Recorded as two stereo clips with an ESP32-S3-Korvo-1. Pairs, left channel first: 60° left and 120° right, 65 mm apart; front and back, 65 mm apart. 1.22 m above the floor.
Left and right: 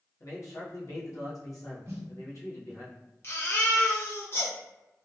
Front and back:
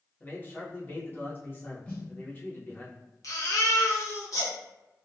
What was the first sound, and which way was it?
A man speaking, 55° left.